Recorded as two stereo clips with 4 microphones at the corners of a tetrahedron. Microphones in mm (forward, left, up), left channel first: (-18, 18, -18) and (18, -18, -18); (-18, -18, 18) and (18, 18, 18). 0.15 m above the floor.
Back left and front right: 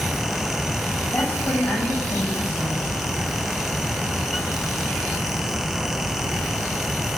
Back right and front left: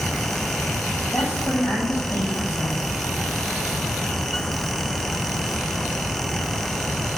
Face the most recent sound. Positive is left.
turn(degrees=-175)